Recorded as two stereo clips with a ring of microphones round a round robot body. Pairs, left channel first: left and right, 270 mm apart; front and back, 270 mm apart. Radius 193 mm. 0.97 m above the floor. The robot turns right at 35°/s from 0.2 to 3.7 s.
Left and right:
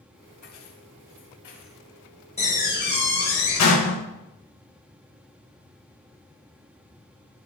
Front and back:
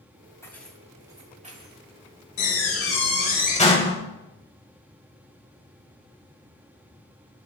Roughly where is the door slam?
Ahead.